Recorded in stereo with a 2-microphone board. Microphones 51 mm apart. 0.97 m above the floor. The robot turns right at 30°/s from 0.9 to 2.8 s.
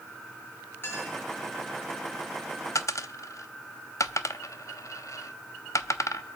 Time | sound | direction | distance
0.8 | a clink | 40° left (ahead or behind) | 9.5 m
2.8 | a dropped coin | 65° left (ahead or behind) | 0.7 m